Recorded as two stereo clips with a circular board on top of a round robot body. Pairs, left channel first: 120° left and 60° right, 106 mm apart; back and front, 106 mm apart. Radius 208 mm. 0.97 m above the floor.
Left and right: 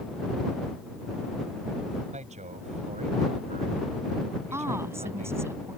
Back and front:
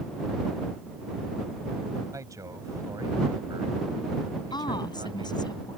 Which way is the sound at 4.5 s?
130° right.